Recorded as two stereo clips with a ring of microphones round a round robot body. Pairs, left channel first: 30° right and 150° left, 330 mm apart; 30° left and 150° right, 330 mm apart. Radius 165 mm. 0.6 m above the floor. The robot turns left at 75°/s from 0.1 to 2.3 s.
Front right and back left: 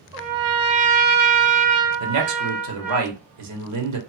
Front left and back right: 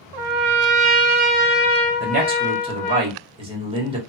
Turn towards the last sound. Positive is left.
turn(degrees=140)